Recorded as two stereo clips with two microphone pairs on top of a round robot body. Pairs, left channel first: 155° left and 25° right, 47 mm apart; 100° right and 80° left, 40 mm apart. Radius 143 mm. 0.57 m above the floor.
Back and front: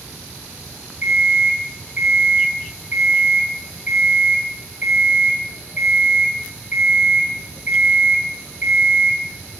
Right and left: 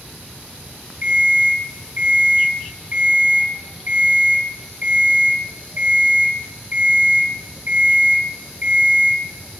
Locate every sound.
1.0 s an alarm clock: 35° left, 3 m